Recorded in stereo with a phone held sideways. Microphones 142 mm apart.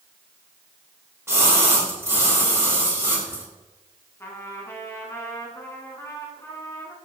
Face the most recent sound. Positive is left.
turn(degrees=20)  # may be behind; listen again after turning